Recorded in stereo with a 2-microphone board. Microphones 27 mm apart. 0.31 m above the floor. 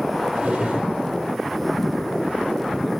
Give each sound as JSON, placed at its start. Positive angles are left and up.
{"t": 0.3, "sound": "a drawer", "side_deg": -35, "distance_m": 5.0}